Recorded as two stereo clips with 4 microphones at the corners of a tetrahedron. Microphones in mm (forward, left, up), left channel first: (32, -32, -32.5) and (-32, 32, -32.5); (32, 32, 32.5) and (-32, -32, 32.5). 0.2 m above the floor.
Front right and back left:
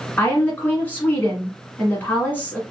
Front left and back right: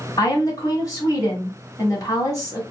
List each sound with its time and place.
0.2 s a woman speaking: 15° left, 1.7 m